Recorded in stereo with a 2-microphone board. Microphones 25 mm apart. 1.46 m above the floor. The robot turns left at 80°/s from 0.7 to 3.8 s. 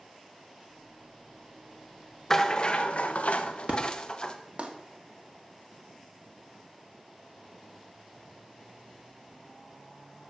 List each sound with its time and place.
2.3 s a rattle: 165° left, 1.0 m; by 4.4 s 45° left, 1.0 m
3.7 s an explosion: 50° right (ahead or behind), 1.6 m; by 4.7 s 60° right (ahead or behind), 1.6 m